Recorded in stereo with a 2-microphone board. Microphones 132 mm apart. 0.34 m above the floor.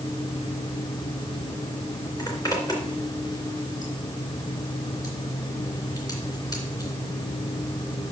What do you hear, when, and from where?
2.2 s a zipper: 30° left (ahead or behind), 3 m